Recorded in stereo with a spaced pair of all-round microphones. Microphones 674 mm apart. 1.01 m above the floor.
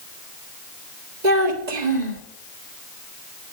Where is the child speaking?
85° right, 1.8 m.